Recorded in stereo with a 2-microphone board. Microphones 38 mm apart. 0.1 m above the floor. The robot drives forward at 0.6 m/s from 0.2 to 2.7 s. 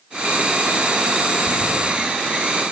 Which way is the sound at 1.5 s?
70° left (ahead or behind).